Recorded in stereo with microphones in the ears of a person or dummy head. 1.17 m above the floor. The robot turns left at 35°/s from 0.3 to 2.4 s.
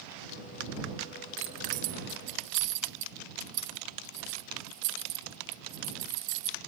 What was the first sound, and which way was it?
Keys jangling, 30° right (ahead or behind).